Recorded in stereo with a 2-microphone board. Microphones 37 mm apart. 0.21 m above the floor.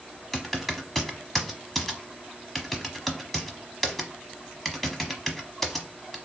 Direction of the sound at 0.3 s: 5° left (ahead or behind).